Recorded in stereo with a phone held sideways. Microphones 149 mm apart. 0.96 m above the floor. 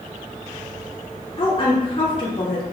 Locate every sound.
1.4 s a woman speaking: 35° left (ahead or behind), 3 m